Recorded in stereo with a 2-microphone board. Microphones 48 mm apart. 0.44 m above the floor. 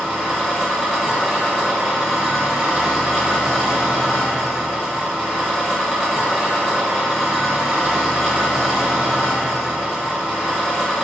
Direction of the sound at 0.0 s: 10° right (ahead or behind).